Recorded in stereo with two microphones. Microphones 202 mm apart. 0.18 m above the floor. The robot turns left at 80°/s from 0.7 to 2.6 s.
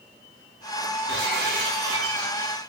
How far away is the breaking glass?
About 9.5 m.